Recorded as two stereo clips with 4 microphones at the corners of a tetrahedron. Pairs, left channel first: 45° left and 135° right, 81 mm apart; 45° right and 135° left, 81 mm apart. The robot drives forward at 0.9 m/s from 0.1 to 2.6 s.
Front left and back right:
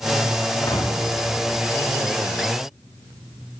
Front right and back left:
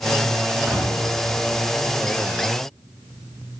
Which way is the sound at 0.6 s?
60° left.